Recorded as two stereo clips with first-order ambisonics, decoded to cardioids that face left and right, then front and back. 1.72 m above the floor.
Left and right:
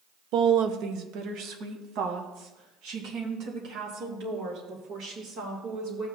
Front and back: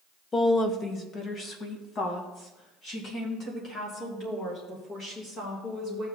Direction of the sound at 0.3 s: 70° right.